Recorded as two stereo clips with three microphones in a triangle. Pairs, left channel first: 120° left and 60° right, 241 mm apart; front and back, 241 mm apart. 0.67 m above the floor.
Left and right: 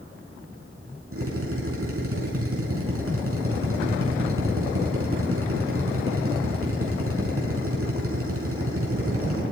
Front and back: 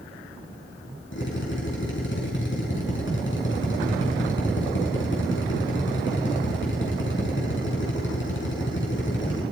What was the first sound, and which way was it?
A drill, 35° right.